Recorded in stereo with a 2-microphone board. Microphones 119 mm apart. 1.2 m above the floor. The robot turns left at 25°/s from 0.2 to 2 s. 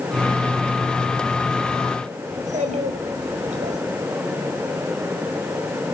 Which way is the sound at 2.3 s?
90° right.